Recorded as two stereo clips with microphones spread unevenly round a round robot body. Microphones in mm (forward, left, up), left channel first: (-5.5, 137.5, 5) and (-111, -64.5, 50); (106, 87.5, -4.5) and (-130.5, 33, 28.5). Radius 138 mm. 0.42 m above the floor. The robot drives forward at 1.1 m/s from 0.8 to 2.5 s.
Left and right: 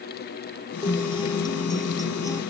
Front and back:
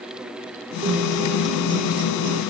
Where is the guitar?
130° left; by 2.4 s 140° left.